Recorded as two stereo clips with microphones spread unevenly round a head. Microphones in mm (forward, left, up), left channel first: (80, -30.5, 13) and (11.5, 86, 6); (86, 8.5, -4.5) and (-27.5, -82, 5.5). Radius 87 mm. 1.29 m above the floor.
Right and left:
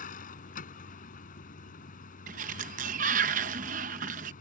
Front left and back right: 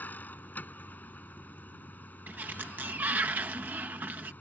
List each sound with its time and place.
0.0 s a vehicle: 40° right
2.3 s a sliding door: 145° left